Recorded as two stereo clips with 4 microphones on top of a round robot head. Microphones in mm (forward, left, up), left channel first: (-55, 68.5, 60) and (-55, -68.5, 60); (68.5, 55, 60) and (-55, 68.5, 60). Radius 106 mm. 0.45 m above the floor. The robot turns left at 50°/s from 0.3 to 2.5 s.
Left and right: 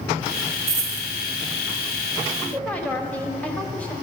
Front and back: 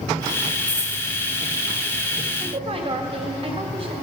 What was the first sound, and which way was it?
A dropped coin, 120° right.